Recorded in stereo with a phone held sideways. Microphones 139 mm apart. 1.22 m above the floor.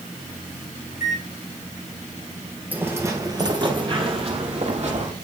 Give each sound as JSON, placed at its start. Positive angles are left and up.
{"t": 0.9, "sound": "a microwave", "side_deg": 80, "distance_m": 3.0}
{"t": 2.7, "sound": "footsteps", "side_deg": -15, "distance_m": 1.5}